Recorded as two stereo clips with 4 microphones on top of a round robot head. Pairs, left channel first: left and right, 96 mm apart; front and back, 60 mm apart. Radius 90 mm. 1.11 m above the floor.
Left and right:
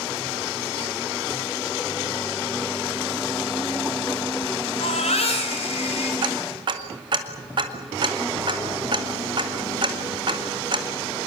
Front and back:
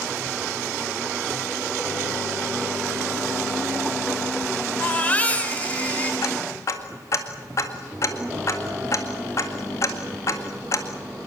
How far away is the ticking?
About 2.0 m.